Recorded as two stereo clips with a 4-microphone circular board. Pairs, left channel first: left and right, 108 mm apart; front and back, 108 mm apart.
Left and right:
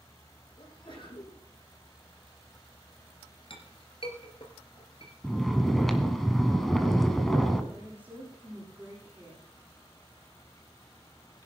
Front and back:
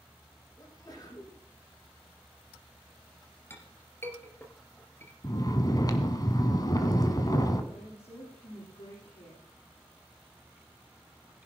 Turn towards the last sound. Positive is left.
turn(degrees=-15)